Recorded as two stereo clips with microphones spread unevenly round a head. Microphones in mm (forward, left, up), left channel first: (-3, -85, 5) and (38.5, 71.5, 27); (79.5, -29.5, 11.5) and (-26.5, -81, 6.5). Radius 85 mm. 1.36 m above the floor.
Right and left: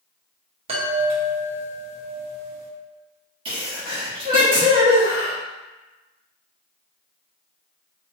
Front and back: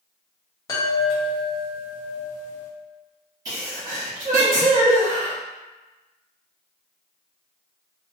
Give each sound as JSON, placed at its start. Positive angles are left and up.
{"t": 0.7, "sound": "a chime", "azimuth_deg": 75, "distance_m": 0.8}
{"t": 3.5, "sound": "a sneeze", "azimuth_deg": 140, "distance_m": 1.1}